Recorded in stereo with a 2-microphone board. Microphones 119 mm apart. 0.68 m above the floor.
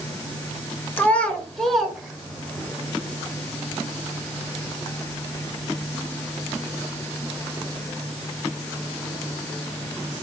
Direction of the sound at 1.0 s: 15° left (ahead or behind).